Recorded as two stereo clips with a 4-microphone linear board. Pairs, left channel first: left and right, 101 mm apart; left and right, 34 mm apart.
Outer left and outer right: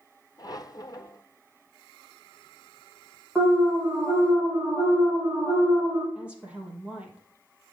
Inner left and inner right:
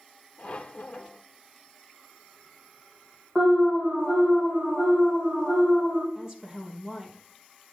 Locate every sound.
0.4 s a squeak: 40° left (ahead or behind), 0.8 m
3.4 s an alarm: 20° right (ahead or behind), 3 m
6.2 s a woman speaking: 10° right (ahead or behind), 3.5 m